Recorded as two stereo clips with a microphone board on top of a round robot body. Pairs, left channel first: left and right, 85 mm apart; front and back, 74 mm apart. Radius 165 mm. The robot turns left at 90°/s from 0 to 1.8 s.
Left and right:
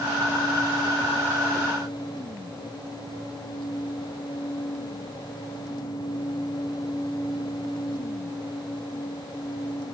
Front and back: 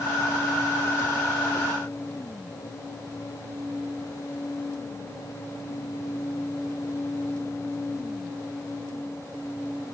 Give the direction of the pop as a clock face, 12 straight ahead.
I don't hear a pop.